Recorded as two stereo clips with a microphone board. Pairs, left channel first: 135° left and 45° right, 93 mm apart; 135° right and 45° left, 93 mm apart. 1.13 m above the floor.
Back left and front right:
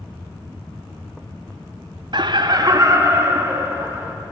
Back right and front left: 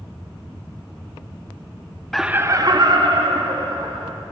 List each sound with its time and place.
2.1 s laughter: 55° right, 0.5 m; by 4.1 s 20° left, 2.5 m